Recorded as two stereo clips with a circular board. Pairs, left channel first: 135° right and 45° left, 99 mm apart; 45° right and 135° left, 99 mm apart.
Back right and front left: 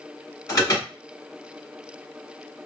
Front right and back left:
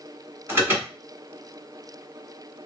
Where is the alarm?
175° right, 1.5 m.